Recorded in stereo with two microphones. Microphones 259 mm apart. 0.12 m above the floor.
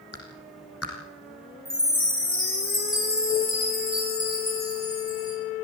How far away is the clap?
About 5 m.